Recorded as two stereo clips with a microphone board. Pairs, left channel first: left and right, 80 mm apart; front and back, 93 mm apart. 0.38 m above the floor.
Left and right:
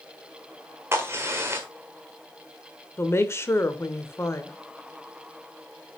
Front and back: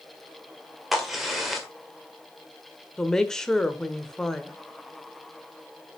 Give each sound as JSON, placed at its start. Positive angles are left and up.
{"t": 0.9, "sound": "a crack", "azimuth_deg": -95, "distance_m": 1.5}
{"t": 3.0, "sound": "a woman speaking", "azimuth_deg": 80, "distance_m": 0.9}